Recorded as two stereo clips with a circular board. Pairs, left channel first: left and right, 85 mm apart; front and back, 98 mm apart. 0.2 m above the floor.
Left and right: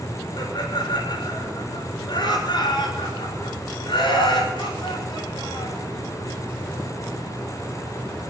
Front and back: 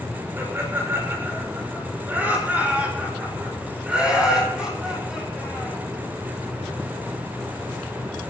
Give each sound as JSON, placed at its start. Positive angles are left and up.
{"t": 0.4, "sound": "laughter", "azimuth_deg": 115, "distance_m": 6.5}